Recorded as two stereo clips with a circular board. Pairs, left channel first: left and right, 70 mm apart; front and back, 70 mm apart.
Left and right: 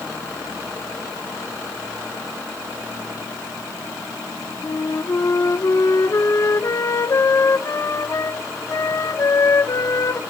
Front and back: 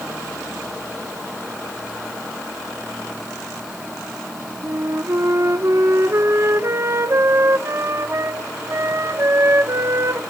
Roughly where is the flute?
Behind left.